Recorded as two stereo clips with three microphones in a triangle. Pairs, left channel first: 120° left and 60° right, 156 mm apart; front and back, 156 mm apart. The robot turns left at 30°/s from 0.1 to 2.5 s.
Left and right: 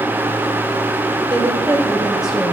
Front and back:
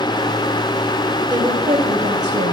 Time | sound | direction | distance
1.3 | a woman speaking | 120° right | 3 m